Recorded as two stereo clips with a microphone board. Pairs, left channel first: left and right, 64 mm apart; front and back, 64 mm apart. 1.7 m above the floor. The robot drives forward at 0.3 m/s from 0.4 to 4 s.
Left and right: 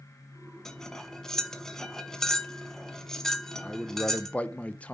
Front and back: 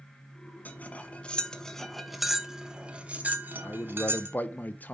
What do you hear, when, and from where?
0.7 s cutlery clinking: 15° left, 1.0 m; by 4.4 s 165° left, 1.0 m
3.6 s a man speaking: 30° left, 0.7 m; by 4.9 s 40° left, 0.6 m